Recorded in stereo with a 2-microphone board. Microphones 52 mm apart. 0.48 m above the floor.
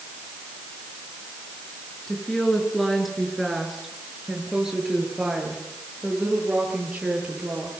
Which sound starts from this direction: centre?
A woman speaking, at 2.1 s.